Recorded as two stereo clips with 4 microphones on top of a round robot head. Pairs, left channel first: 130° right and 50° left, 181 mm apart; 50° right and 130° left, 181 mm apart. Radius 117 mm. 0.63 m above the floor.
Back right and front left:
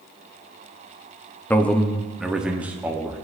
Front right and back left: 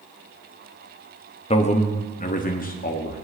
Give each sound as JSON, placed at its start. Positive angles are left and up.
{"t": 1.5, "sound": "a man speaking", "azimuth_deg": -60, "distance_m": 1.3}